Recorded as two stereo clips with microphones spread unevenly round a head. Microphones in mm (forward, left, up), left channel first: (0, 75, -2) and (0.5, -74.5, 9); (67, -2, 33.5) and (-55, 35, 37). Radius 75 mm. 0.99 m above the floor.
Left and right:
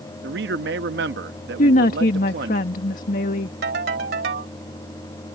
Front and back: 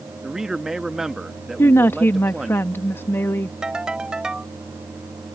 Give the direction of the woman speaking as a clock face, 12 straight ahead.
10 o'clock.